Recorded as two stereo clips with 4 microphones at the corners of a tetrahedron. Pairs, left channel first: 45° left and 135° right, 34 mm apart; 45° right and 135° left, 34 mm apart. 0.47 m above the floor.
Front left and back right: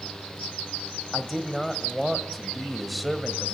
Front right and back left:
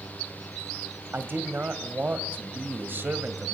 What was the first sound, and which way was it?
A man speaking, 135° left.